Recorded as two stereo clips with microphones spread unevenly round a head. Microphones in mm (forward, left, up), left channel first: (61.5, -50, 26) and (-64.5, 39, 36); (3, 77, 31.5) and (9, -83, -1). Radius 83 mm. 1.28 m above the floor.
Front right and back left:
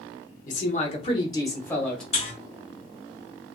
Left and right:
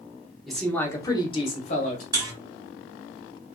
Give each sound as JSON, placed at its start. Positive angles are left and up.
{"t": 0.5, "sound": "a man speaking", "azimuth_deg": 0, "distance_m": 0.9}
{"t": 2.1, "sound": "a buzzer", "azimuth_deg": -15, "distance_m": 1.0}